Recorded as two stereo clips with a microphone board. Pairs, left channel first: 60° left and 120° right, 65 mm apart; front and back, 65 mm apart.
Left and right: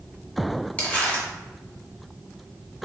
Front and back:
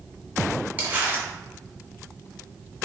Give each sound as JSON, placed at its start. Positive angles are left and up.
{"t": 0.8, "sound": "crumpling", "azimuth_deg": 120, "distance_m": 1.4}